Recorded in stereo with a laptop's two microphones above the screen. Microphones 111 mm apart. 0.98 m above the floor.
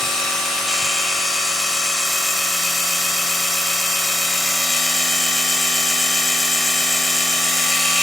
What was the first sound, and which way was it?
A machine running, 5° left (ahead or behind).